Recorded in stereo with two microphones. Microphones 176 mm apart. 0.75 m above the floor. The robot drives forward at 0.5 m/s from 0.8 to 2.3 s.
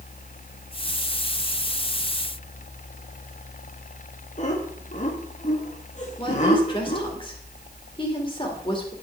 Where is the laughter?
45° left (ahead or behind), 1.3 m.